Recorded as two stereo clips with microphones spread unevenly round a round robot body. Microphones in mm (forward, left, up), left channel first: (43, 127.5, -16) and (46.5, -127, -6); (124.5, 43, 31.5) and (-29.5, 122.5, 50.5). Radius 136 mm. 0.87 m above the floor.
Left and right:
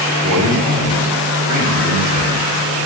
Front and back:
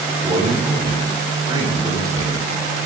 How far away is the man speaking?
About 7 m.